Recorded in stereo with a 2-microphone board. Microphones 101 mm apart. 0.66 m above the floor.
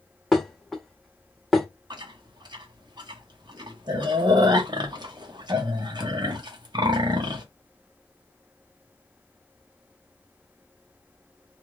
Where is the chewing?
45° right (ahead or behind), 0.8 m.